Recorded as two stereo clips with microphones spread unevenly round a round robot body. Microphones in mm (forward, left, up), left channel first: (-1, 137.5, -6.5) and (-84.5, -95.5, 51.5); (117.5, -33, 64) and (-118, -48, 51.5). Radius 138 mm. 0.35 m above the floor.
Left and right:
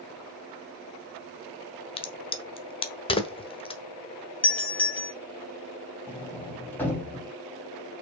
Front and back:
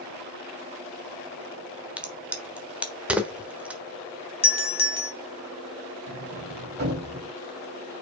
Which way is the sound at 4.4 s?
5° left.